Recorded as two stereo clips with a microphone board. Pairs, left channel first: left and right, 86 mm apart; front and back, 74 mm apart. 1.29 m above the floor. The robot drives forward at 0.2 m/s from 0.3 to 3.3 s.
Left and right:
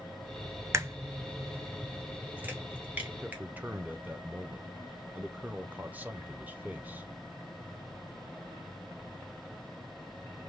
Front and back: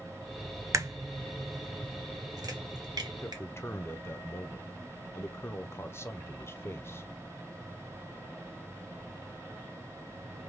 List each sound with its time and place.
0.7 s a crack: 140° right, 0.6 m; by 3.4 s 160° right, 1.0 m
3.2 s a man speaking: 30° right, 0.6 m